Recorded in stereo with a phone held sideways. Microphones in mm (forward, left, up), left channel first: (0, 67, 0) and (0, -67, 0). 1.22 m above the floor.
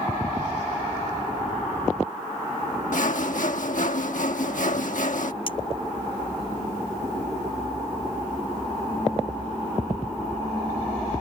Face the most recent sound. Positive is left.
turn(degrees=40)  # may be behind; listen again after turning